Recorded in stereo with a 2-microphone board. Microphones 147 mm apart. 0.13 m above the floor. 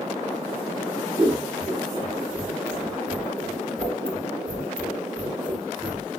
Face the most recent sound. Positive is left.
turn(degrees=-5)  # may be behind; listen again after turning